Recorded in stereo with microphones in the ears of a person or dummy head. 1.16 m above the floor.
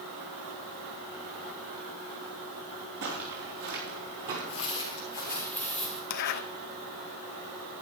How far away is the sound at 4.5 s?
About 1.5 m.